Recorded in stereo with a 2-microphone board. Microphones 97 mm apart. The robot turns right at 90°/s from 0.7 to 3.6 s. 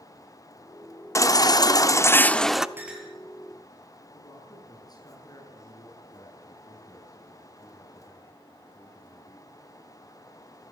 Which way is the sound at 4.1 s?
40° left (ahead or behind).